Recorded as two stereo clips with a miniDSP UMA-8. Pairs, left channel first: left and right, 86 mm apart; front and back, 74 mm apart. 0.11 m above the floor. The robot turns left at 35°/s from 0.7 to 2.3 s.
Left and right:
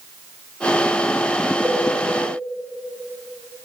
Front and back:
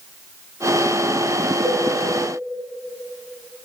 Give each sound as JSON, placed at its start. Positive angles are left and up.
{"t": 1.6, "sound": "a cowbell", "azimuth_deg": 175, "distance_m": 3.0}